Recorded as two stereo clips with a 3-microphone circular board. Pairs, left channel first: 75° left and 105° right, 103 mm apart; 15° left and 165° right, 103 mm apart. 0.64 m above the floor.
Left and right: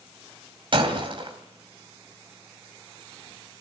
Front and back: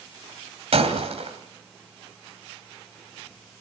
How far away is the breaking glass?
About 2.5 m.